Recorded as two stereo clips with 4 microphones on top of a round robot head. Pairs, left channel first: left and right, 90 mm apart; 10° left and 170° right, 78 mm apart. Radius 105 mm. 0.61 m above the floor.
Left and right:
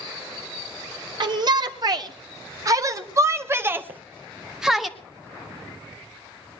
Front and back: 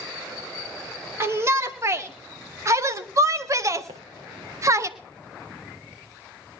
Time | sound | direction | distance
1.2 | a shout | 115° right | 2.5 m
3.9 | footsteps | 155° right | 3 m